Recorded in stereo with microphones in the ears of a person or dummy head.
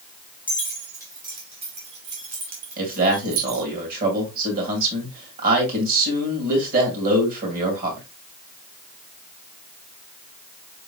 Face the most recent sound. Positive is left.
turn(degrees=-50)  # may be behind; listen again after turning